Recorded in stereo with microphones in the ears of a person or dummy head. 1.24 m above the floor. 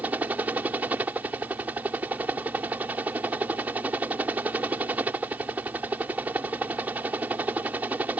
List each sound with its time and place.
0.0 s a helicopter: 5° right (ahead or behind)